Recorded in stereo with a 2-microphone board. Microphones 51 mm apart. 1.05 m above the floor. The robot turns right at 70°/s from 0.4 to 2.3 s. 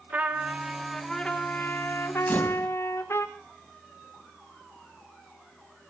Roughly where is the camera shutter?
Left.